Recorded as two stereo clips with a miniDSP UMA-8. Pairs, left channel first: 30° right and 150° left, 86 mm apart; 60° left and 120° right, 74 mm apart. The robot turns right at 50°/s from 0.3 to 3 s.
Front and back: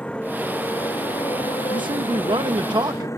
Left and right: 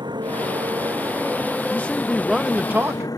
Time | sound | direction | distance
0.0 | a motorcycle | 105° right | ?
1.7 | a man speaking | 125° left | ?